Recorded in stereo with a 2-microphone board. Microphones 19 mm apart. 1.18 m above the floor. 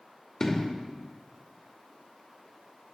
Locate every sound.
0.4 s an explosion: 25° left (ahead or behind), 2.5 m